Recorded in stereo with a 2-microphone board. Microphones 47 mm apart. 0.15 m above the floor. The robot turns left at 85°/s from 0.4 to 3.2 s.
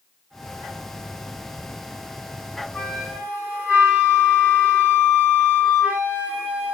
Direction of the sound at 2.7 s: 15° left.